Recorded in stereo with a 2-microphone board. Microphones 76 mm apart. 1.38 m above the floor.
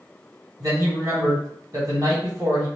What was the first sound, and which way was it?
A man speaking, 50° right (ahead or behind).